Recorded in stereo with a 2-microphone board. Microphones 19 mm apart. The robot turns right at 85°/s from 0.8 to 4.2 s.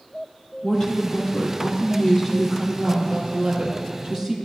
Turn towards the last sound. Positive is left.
turn(degrees=-40)